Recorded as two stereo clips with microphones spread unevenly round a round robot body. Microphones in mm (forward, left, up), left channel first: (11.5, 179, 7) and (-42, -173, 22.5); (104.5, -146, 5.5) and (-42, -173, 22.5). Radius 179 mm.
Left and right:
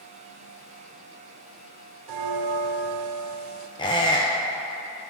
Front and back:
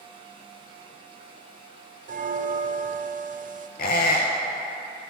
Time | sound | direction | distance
2.1 | a bell | 125° right | 0.5 m
3.8 | a squeak | 5° left | 0.7 m